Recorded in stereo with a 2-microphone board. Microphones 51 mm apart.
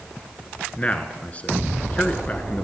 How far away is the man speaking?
About 1.3 m.